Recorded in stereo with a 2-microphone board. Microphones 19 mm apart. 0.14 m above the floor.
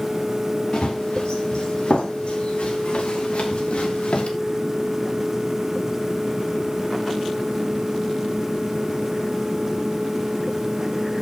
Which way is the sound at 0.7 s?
55° left (ahead or behind).